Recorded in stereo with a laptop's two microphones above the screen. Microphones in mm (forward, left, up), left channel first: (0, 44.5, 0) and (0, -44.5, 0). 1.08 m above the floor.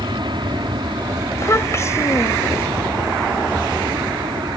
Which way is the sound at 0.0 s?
60° right (ahead or behind).